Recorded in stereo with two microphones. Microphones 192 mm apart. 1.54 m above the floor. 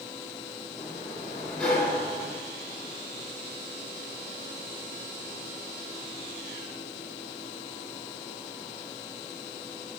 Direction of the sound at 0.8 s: 5° left (ahead or behind).